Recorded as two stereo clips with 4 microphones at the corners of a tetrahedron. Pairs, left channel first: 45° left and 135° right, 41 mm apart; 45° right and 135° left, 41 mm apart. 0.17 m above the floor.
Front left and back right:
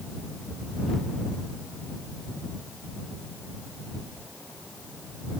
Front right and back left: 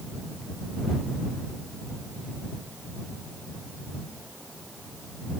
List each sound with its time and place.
Only background noise.